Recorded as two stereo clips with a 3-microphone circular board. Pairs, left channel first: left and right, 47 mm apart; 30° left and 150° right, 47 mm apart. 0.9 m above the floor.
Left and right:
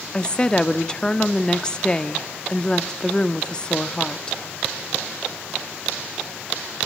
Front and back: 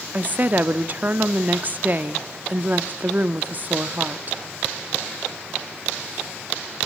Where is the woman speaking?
160° left, 1.5 m.